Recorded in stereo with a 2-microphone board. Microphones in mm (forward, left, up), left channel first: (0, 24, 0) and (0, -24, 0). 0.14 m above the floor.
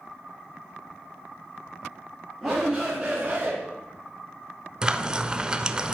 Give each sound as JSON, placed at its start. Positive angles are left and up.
{"t": 2.4, "sound": "a shout", "side_deg": 0, "distance_m": 2.0}
{"t": 4.8, "sound": "frying", "side_deg": -15, "distance_m": 0.5}